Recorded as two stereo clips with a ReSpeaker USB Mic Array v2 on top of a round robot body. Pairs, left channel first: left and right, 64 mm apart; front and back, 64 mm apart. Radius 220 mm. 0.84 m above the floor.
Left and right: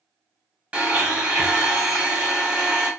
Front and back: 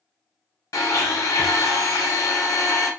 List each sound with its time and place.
0.7 s a blender: 20° right, 1.0 m